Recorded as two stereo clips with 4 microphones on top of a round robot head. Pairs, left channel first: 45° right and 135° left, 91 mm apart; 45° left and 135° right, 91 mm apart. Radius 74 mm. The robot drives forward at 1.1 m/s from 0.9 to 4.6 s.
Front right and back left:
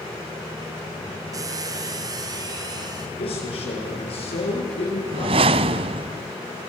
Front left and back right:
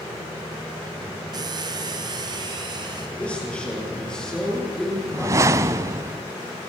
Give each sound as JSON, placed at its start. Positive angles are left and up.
{"t": 1.3, "sound": "a squeak", "azimuth_deg": -175, "distance_m": 1.7}
{"t": 3.2, "sound": "a man speaking", "azimuth_deg": -30, "distance_m": 9.5}
{"t": 5.1, "sound": "a whoosh", "azimuth_deg": 165, "distance_m": 0.6}